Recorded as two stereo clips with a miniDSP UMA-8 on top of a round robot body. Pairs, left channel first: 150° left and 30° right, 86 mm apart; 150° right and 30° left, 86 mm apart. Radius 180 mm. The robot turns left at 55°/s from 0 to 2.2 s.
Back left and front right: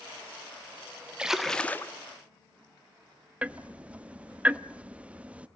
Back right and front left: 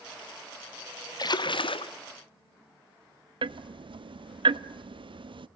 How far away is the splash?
About 1.2 m.